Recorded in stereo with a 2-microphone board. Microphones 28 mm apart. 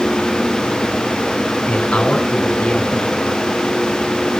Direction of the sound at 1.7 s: 70° left (ahead or behind).